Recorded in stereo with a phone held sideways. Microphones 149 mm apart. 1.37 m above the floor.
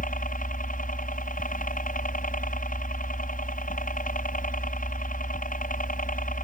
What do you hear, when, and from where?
0.0 s a helicopter: 65° left (ahead or behind)